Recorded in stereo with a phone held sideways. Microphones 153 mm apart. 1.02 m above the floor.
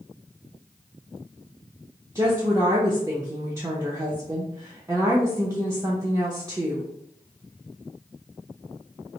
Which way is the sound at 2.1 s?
20° right (ahead or behind).